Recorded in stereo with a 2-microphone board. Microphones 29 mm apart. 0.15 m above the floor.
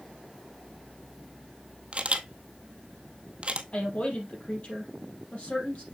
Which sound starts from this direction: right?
A camera shutter, at 1.9 s.